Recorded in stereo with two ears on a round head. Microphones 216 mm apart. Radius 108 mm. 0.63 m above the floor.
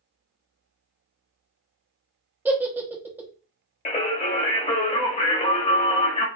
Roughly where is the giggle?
Centre.